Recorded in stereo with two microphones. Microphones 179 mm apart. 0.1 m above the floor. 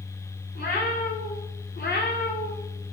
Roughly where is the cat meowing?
Left.